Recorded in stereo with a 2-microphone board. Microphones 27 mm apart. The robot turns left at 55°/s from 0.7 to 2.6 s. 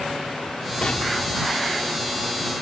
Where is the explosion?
80° left; by 2.3 s straight ahead.